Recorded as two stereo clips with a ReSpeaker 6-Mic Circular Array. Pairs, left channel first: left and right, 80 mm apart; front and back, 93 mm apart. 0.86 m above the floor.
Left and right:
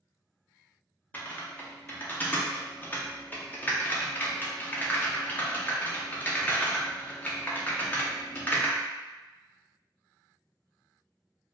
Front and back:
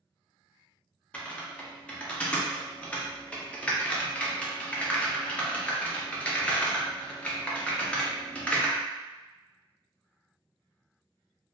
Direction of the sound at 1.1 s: 55° left.